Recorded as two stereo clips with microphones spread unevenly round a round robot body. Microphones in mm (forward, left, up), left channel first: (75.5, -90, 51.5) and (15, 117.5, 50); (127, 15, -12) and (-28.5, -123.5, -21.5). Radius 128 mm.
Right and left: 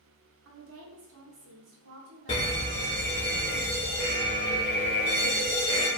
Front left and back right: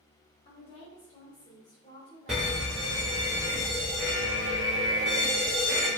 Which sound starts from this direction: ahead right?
A fire alarm, at 2.3 s.